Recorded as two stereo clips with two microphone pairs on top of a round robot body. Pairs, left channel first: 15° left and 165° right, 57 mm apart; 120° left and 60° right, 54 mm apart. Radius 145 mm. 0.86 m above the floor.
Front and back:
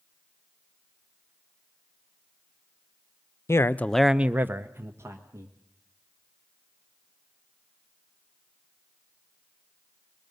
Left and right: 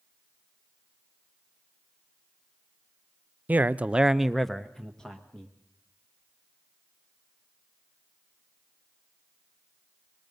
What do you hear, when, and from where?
3.5 s a man speaking: 15° right, 0.8 m; by 5.5 s 165° right, 1.9 m